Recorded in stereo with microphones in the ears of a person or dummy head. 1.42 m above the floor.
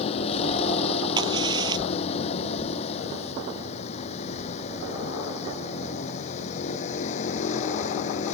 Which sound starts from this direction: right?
A crack, at 1.2 s.